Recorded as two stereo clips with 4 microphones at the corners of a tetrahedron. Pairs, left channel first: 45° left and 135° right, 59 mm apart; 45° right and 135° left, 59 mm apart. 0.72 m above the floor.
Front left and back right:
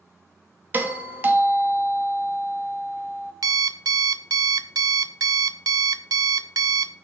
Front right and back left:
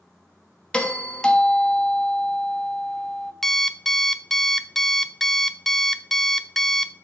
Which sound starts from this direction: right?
A doorbell, at 0.7 s.